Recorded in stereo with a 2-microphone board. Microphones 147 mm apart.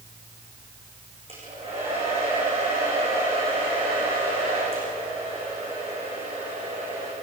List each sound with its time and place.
1.3 s a hair dryer: 40° right (ahead or behind), 10 m